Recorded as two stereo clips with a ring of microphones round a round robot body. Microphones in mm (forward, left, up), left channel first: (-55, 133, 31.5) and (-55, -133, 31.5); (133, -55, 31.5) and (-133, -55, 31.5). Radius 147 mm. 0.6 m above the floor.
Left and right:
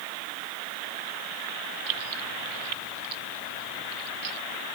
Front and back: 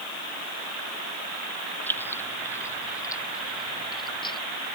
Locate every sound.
1.9 s keys jangling: 85° right; by 4.4 s 75° right